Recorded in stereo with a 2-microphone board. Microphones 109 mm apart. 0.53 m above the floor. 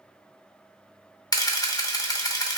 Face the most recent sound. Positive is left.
turn(degrees=35)  # may be behind; listen again after turning